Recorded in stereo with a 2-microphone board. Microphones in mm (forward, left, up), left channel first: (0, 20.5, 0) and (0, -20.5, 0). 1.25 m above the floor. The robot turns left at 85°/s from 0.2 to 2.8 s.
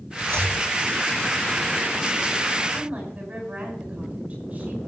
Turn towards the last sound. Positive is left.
turn(degrees=-30)  # may be behind; listen again after turning